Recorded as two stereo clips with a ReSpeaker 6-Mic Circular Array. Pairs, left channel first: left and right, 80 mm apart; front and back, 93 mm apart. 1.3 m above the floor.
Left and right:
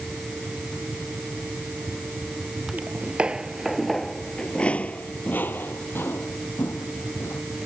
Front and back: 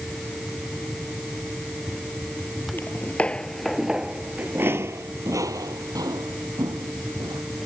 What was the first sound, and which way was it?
Footsteps, 40° right.